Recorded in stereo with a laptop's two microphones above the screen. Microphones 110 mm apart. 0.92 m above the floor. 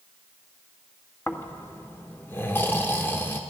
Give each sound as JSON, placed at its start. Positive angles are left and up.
{"t": 1.3, "sound": "snoring", "side_deg": 20, "distance_m": 1.2}